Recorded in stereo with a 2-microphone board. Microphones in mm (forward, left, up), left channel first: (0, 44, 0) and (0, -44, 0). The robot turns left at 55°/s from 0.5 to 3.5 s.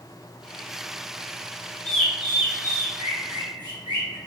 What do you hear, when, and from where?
1.9 s a bird: 10° left (ahead or behind), 1.2 m; by 4.2 s 55° right (ahead or behind), 1.2 m